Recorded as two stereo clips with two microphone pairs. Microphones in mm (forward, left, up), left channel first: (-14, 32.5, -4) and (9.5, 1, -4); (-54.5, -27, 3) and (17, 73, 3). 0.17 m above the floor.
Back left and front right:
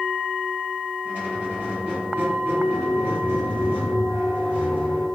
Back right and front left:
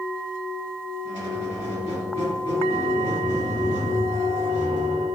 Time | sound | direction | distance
1.1 | a squeak | 95° right | 1.8 m